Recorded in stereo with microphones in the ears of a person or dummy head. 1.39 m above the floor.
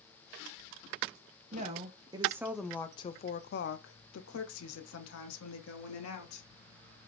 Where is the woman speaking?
30° right (ahead or behind), 0.9 m; by 6.5 s 70° left (ahead or behind), 1.8 m.